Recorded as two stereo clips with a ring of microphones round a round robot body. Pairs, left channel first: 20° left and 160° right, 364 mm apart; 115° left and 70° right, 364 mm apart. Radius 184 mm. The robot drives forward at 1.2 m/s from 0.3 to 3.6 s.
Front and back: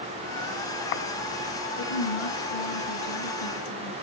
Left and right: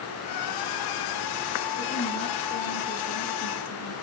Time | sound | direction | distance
1.8 | a woman speaking | 35° left | 5.5 m